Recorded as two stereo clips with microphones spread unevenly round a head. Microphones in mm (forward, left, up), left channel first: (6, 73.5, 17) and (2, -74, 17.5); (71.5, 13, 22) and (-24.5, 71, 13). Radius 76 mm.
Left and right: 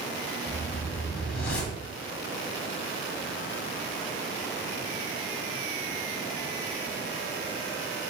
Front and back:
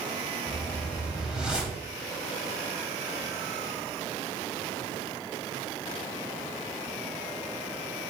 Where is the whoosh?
65° left, 2.5 m.